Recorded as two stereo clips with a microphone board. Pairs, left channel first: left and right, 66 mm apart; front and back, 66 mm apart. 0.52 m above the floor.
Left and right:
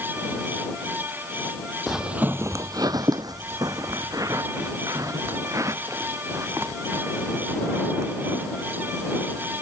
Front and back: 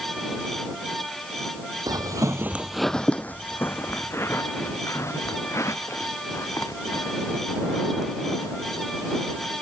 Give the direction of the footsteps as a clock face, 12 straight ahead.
6 o'clock.